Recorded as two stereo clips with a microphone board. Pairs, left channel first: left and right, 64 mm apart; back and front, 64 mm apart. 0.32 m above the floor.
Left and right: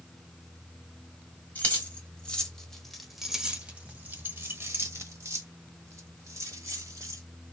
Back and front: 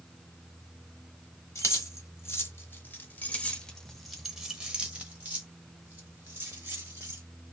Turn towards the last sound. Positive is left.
turn(degrees=-55)